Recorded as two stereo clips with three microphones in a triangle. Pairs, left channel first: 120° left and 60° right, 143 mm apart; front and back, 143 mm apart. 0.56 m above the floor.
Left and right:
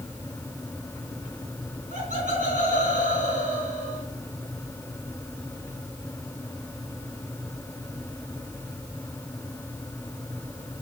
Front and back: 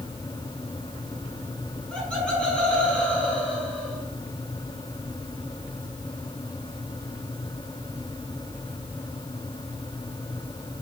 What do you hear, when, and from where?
1.9 s laughter: 85° right, 4 m